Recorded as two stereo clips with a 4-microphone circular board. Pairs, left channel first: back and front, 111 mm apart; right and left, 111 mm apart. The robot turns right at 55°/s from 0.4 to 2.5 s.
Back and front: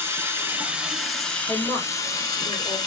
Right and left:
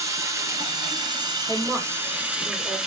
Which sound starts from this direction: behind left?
A woman speaking, at 1.5 s.